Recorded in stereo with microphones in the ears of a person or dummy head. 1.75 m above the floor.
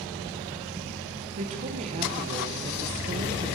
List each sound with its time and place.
1.4 s a woman speaking: 35° right (ahead or behind), 1.1 m